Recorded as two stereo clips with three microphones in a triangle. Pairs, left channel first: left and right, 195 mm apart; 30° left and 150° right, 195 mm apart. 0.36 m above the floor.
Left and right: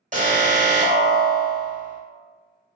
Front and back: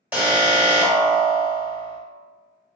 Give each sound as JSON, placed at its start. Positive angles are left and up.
{"t": 0.1, "sound": "an alarm", "azimuth_deg": -70, "distance_m": 0.8}